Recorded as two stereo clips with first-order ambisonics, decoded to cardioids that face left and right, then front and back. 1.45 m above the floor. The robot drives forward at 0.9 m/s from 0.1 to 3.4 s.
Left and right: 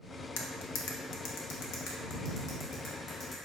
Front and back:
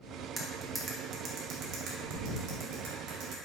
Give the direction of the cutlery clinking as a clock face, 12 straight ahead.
9 o'clock.